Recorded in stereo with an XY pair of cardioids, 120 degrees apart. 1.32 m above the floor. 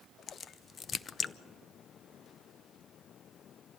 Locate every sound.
0.3 s a crack: 40° left, 0.6 m